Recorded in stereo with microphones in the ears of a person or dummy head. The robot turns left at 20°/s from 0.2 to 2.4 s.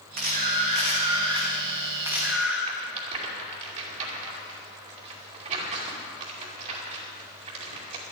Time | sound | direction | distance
0.2 | a camera shutter | 135° right | 2 m
2.7 | a rattle | 35° right (ahead or behind) | 2.5 m